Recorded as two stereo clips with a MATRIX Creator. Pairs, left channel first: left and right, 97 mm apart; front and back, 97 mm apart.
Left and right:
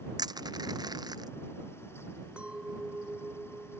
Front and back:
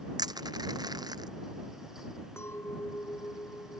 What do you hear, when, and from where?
0.2 s crushing: 135° right
2.4 s a clink: 25° right